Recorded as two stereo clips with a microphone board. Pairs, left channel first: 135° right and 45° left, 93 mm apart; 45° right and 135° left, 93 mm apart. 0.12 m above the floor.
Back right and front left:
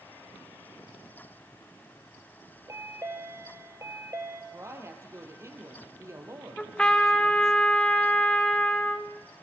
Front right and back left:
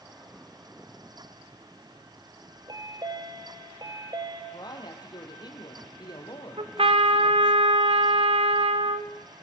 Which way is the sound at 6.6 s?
145° left.